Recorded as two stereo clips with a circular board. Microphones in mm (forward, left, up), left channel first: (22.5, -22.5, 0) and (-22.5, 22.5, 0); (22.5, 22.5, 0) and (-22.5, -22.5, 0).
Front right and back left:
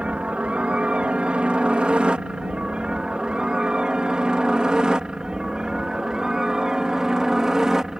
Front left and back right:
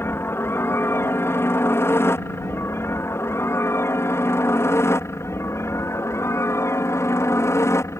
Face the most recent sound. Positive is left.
turn(degrees=55)